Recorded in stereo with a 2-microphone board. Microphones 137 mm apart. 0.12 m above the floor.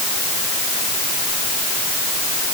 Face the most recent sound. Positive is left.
No sound to turn to.